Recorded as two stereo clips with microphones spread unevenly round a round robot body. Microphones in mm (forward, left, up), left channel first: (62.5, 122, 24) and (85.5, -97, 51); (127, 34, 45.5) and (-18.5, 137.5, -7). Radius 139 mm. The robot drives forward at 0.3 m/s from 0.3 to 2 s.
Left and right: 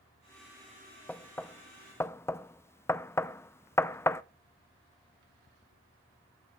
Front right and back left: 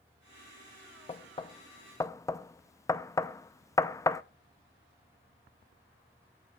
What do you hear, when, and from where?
1.1 s knocking: 25° left, 0.7 m; by 4.2 s 55° left, 0.6 m